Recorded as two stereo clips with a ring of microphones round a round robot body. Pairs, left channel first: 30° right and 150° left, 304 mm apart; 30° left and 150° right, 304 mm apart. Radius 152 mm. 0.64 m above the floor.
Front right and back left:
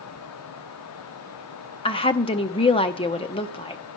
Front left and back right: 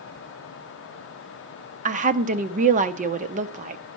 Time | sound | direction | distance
1.9 | a woman speaking | 95° right | 0.7 m